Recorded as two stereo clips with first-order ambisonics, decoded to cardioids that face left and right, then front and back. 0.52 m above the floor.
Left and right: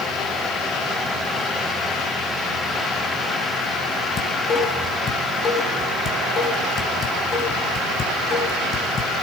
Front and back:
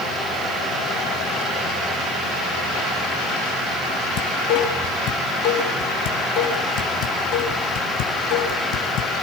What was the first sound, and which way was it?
Dishes clattering, 25° left.